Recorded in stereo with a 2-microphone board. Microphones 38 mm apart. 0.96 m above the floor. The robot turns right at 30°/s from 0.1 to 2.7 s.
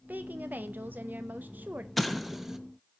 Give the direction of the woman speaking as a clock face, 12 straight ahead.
4 o'clock.